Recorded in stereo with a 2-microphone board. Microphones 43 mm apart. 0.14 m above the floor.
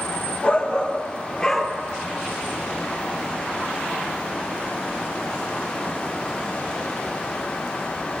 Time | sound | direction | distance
0.4 | a shout | 30° left (ahead or behind) | 2 m